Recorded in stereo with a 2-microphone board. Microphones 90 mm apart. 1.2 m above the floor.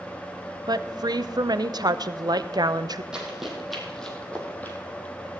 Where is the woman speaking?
55° right (ahead or behind), 0.6 m.